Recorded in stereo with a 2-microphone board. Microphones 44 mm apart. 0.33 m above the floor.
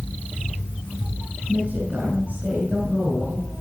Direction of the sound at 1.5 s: 35° right (ahead or behind).